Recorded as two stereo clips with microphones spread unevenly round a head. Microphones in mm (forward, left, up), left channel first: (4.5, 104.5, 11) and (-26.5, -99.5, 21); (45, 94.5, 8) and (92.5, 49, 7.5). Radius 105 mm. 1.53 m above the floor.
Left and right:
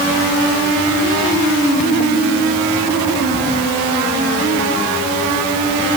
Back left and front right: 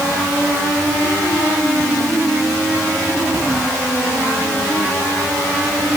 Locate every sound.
Only background noise.